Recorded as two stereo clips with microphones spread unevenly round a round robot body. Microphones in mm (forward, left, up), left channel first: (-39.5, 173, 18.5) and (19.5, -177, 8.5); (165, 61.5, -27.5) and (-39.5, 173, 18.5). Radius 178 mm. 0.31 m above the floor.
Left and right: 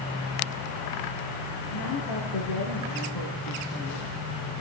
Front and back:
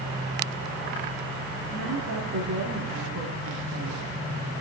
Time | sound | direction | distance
1.7 | a woman speaking | 120° left | 4 m